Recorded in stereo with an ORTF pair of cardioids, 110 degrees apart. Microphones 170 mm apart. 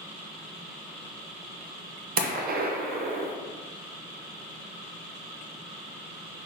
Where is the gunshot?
60° right, 0.8 m.